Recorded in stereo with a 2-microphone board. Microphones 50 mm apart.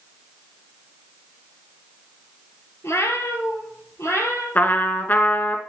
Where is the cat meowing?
60° left (ahead or behind), 1.7 m; by 4.5 s 65° left (ahead or behind), 2.5 m.